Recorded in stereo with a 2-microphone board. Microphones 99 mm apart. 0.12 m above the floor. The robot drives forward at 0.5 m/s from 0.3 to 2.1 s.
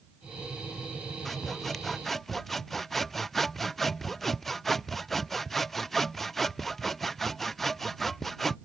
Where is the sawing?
5° left (ahead or behind).